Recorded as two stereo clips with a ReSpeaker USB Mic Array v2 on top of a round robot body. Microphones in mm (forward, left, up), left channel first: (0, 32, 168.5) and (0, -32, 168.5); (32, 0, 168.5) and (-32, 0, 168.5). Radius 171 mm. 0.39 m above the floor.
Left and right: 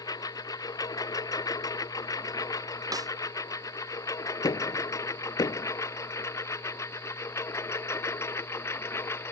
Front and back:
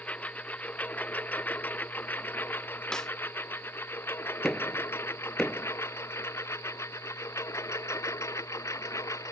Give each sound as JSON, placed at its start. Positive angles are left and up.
{"t": 0.0, "sound": "a lawn mower", "azimuth_deg": 70}
{"t": 2.9, "sound": "a snare drum", "azimuth_deg": -80}
{"t": 4.4, "sound": "knocking", "azimuth_deg": 85}